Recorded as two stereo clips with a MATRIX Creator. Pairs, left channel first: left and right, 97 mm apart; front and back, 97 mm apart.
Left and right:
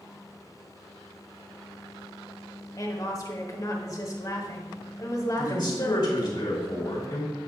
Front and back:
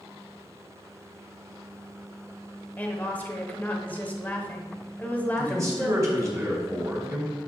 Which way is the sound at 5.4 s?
125° left.